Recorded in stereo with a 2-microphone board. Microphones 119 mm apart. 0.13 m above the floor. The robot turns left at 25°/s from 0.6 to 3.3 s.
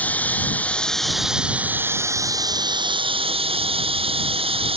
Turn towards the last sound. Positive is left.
turn(degrees=-55)